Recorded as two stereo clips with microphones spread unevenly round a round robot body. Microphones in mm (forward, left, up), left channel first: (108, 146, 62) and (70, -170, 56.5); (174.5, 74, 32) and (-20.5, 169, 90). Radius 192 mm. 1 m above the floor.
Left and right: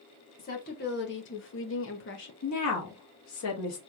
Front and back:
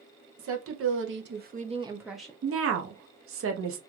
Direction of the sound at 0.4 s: 145° left.